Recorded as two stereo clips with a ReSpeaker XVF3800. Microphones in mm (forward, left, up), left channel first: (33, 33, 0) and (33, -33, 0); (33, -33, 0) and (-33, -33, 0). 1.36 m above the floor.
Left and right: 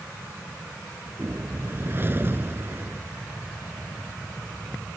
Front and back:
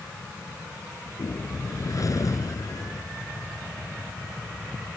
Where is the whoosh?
35° right.